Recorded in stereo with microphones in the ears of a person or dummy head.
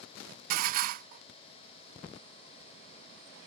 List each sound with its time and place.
0.5 s dishes clattering: 50° right (ahead or behind)